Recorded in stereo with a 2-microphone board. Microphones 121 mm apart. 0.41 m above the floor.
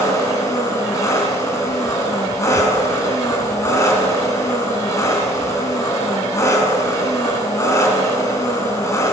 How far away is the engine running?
About 2.5 m.